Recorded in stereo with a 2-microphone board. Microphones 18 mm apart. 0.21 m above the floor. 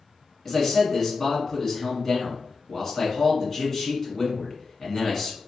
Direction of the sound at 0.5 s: 20° left (ahead or behind).